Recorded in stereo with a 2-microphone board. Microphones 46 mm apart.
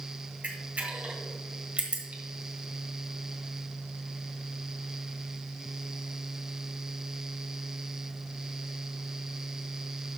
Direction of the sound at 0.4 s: 35° right (ahead or behind).